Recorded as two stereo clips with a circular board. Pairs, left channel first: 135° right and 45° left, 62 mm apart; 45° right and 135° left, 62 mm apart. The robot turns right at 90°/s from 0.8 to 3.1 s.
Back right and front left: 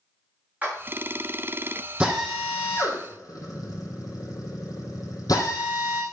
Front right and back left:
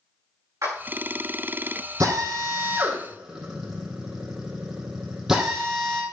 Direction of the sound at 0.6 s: 110° left.